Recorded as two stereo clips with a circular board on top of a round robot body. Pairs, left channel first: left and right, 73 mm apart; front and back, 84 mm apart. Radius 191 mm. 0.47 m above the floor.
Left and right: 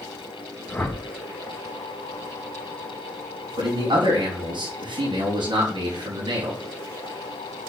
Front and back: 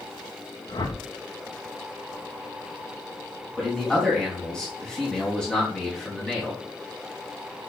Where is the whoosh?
20° left, 2 m.